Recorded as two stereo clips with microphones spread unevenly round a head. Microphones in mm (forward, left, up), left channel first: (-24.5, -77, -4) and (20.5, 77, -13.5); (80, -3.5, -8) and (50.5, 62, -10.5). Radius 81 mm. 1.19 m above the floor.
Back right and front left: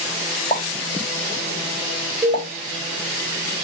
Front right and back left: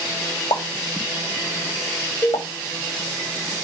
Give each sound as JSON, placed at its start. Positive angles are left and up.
{"t": 0.5, "sound": "a pop", "azimuth_deg": -40, "distance_m": 3.5}
{"t": 2.2, "sound": "a cowbell", "azimuth_deg": 5, "distance_m": 3.0}